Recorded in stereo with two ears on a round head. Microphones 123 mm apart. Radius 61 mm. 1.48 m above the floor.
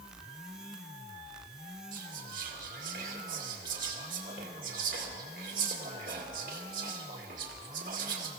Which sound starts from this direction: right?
Whispering, at 1.9 s.